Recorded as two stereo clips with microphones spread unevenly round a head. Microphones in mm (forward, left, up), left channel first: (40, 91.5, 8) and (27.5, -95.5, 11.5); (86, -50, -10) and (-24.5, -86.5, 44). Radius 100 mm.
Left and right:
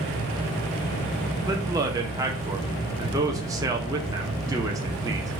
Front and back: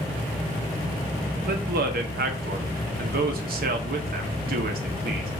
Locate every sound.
1.4 s a man speaking: 165° right, 0.8 m